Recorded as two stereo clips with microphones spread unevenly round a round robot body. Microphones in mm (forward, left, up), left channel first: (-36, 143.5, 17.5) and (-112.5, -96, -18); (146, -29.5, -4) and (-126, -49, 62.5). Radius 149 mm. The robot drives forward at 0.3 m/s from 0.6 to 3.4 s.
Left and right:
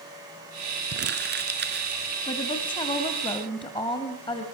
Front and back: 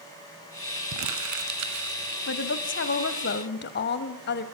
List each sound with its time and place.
0.9 s crumpling: 150° right, 2 m; by 2.0 s 155° right, 2.5 m
2.3 s a woman speaking: straight ahead, 1.8 m; by 4.5 s 5° right, 1.5 m